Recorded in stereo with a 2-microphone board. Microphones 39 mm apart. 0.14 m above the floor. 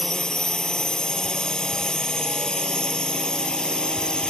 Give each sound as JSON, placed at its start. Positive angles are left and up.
{"t": 0.0, "sound": "a drone", "side_deg": 20}